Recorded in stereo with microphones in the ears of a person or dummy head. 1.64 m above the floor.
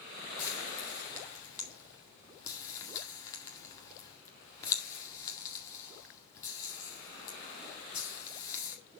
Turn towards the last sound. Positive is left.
turn(degrees=20)  # may be behind; listen again after turning